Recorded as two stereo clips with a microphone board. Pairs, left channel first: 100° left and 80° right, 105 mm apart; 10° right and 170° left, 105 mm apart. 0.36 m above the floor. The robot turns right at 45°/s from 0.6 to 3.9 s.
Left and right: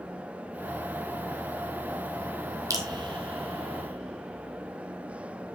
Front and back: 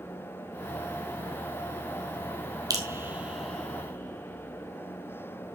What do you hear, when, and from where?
2.7 s dripping: 135° right, 2 m; by 5.5 s 80° right, 2 m